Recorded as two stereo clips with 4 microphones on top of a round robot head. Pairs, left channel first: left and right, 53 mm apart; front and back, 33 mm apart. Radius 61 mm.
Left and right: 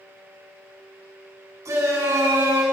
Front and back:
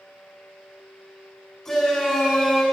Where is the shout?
75° right, 6.5 m.